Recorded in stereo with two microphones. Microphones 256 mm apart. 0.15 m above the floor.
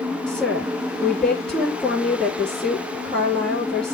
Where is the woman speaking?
5° left (ahead or behind), 4 m.